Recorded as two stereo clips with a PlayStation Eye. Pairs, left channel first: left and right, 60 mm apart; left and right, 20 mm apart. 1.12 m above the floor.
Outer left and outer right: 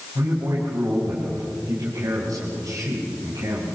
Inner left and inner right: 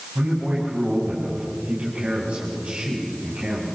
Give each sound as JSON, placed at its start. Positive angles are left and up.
{"t": 0.1, "sound": "a man speaking", "side_deg": -90, "distance_m": 6.5}